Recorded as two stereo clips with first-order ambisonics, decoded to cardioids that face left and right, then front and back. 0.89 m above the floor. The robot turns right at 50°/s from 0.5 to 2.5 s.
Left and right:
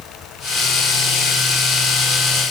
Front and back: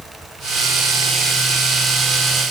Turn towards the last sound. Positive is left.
No sound to turn to.